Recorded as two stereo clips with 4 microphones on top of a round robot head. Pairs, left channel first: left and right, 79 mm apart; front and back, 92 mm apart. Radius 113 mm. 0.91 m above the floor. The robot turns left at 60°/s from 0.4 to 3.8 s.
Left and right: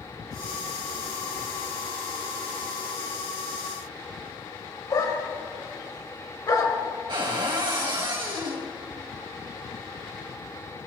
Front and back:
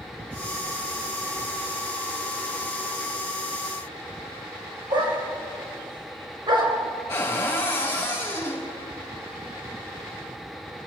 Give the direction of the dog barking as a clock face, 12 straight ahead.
7 o'clock.